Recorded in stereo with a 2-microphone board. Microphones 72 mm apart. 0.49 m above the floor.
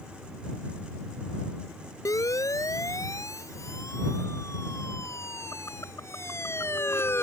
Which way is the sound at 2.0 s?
50° left (ahead or behind).